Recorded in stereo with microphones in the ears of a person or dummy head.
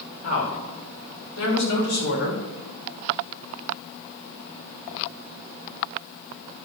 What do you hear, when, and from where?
0.2 s a woman speaking: 85° left, 5 m; by 2.4 s 75° left (ahead or behind), 5.5 m